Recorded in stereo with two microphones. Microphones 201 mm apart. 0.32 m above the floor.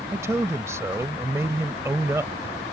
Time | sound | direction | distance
0.1 | a man speaking | 15° right (ahead or behind) | ?